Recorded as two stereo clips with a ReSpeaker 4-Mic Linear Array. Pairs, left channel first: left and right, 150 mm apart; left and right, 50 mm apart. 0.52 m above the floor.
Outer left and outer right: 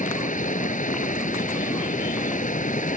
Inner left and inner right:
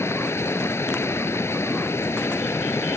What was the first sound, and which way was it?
Running water, 60° left (ahead or behind).